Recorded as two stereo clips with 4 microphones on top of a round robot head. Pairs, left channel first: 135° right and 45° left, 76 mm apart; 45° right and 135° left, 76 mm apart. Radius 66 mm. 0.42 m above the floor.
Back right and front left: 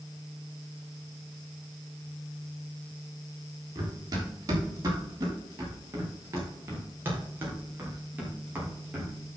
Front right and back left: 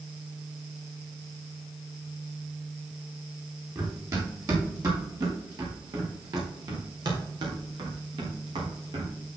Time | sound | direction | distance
3.8 | running footsteps | 85° left | 6 m